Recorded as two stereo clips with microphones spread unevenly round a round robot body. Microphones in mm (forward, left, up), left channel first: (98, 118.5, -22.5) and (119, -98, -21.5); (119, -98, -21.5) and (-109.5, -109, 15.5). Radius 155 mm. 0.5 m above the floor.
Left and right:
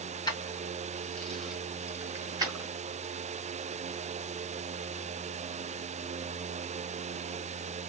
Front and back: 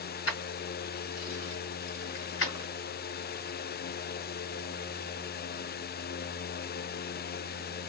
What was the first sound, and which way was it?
Keys jangling, 25° left.